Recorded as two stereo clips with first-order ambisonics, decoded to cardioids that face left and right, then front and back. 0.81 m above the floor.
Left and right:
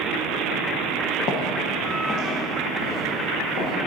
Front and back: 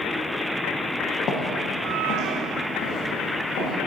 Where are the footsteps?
50° left, 1.3 m; by 3.7 s 40° left, 3.5 m.